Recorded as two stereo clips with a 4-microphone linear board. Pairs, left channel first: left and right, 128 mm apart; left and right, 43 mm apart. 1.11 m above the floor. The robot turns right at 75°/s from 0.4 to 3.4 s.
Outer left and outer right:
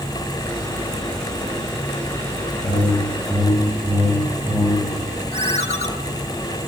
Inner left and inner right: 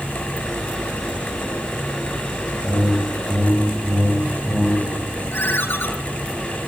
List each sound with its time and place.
2.6 s a whoosh: 115° left, 3 m; by 4.9 s 175° left, 3 m
5.3 s a ringtone: 60° left (ahead or behind), 2 m